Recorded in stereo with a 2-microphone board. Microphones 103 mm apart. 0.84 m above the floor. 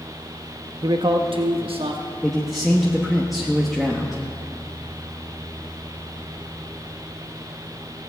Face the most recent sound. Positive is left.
turn(degrees=0)  # may be behind; listen again after turning